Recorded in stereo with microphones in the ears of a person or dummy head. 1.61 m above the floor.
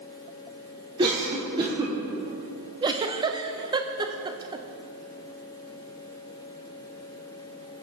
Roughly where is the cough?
Right.